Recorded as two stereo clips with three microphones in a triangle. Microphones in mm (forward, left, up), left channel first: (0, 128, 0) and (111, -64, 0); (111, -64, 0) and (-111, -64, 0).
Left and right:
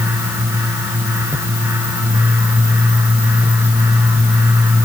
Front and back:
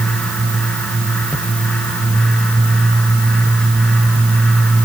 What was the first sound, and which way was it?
Only background noise.